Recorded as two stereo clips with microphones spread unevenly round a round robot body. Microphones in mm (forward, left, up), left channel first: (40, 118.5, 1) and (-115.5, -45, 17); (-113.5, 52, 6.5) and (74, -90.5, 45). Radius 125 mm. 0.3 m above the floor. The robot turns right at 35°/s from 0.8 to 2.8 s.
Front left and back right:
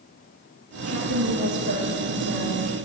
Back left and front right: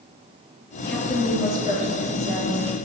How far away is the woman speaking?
About 5.5 m.